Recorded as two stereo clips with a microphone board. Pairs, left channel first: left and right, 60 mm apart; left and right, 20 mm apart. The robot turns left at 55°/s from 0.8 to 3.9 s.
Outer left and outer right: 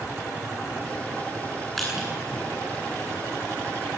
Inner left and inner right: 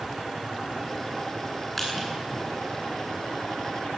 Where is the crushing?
5° left (ahead or behind), 9.5 m; by 2.1 s 10° right (ahead or behind), 9.5 m.